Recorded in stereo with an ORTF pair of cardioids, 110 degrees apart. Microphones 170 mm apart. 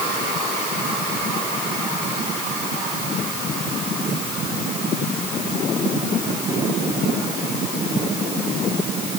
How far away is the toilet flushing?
I don't hear a toilet flushing.